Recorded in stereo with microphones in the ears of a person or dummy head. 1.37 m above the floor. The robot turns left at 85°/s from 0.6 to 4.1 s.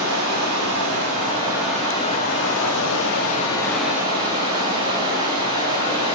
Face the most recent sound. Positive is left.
turn(degrees=-30)